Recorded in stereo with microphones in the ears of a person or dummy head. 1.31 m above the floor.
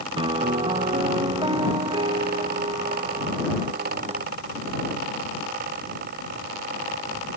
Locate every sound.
0.2 s a piano: 20° right (ahead or behind)